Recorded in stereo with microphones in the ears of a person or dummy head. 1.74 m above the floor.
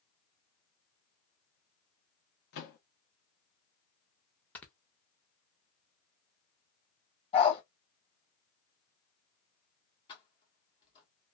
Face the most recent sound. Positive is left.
turn(degrees=25)  # may be behind; listen again after turning